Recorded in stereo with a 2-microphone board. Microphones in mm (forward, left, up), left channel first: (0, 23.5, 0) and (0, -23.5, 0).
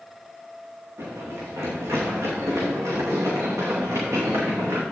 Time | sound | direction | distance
1.0 | running footsteps | 65° right (ahead or behind) | 4.5 m